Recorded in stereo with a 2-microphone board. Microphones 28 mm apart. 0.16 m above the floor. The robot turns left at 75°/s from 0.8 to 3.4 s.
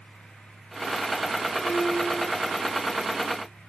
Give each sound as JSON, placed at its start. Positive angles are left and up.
{"t": 1.6, "sound": "a piano", "azimuth_deg": 100, "distance_m": 7.0}